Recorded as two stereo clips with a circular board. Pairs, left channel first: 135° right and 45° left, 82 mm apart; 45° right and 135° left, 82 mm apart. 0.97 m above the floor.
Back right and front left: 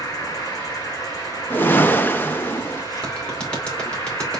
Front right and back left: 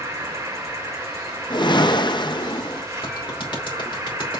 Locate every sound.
0.0 s an insect: 175° right, 2.5 m
1.5 s a whoosh: 70° right, 0.7 m
3.0 s a clap: 60° right, 2.5 m